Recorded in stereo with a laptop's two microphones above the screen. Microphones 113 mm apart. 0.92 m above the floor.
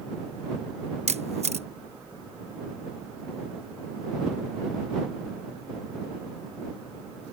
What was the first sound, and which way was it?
A camera shutter, 75° right (ahead or behind).